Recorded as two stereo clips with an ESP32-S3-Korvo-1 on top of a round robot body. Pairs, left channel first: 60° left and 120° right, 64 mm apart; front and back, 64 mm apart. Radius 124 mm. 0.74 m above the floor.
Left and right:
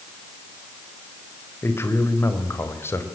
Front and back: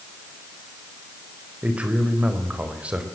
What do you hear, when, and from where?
1.6 s a man speaking: 110° left, 4.5 m